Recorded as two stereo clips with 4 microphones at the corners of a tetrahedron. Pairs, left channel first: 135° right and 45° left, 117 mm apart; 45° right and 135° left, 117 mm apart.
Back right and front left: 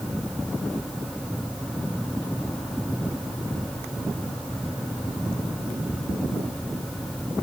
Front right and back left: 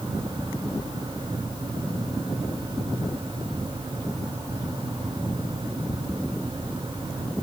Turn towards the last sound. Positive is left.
No sound to turn to.